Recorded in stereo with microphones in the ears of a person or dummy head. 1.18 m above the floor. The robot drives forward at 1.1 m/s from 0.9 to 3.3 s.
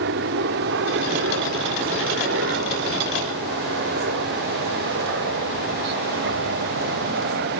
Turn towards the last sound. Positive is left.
turn(degrees=-55)  # may be behind; listen again after turning